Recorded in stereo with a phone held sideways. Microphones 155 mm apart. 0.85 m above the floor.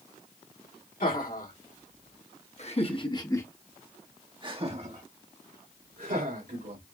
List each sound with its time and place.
1.0 s laughter: 65° left (ahead or behind), 2.5 m; by 6.8 s 75° right (ahead or behind), 2.5 m